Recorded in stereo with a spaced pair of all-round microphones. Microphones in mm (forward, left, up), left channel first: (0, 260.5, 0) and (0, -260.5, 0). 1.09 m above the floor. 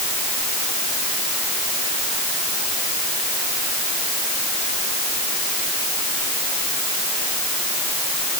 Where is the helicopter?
I don't hear a helicopter.